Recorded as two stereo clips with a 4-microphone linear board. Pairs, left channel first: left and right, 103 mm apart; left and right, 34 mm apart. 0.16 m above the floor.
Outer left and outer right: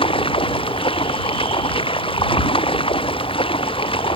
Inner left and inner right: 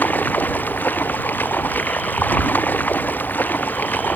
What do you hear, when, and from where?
0.0 s running water: 60° left (ahead or behind)